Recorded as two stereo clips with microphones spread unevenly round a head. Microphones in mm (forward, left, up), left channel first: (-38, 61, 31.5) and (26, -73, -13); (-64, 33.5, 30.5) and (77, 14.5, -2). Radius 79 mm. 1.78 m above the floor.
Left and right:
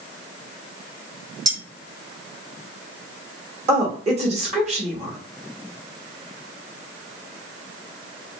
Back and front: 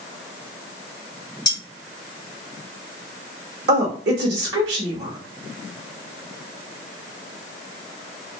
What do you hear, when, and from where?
1.4 s cutlery clinking: 135° right, 1.8 m
3.7 s a woman speaking: 10° right, 1.1 m